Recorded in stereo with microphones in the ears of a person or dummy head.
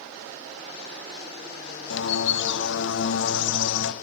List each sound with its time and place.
1.9 s a bird: 75° left (ahead or behind), 0.9 m